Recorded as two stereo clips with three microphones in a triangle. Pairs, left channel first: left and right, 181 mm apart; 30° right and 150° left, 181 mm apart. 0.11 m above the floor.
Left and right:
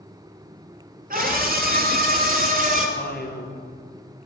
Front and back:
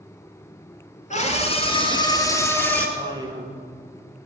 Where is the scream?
70° right, 2.5 m; by 2.9 s 110° right, 2.5 m.